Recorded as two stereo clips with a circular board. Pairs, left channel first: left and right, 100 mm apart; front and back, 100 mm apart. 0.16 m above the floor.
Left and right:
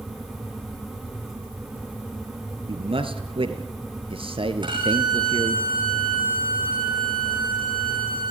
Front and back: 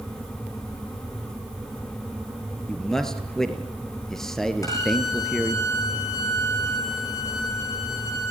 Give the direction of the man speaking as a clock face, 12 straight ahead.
3 o'clock.